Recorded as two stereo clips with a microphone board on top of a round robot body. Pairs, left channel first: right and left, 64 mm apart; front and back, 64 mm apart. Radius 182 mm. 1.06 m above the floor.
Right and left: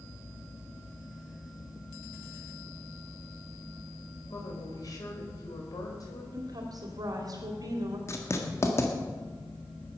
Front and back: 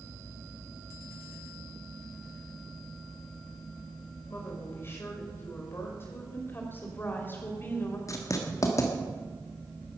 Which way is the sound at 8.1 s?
40° right.